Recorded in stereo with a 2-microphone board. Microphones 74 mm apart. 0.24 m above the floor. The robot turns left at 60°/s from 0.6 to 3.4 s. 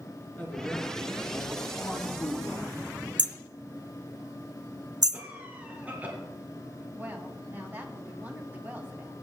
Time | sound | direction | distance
0.4 | a man speaking | 160° left | 3.5 m
3.2 | hammering | 65° right (ahead or behind) | 0.5 m
5.1 | a cough | 25° right (ahead or behind) | 3 m
6.9 | a woman speaking | 25° right (ahead or behind) | 2 m